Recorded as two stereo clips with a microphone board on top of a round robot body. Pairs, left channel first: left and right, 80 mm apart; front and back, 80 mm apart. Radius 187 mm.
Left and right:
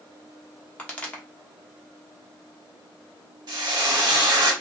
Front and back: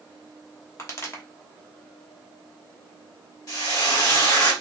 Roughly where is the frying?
Ahead right.